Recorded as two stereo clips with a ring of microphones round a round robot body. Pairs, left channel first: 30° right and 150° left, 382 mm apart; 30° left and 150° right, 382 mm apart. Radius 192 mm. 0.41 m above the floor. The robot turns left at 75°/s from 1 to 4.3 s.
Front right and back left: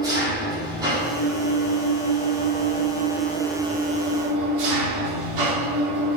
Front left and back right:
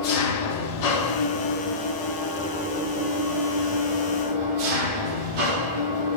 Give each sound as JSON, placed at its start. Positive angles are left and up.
{"t": 0.0, "sound": "an engine running", "azimuth_deg": 70, "distance_m": 4.0}